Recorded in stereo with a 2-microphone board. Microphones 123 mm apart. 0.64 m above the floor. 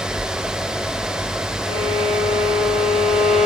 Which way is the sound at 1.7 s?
90° left.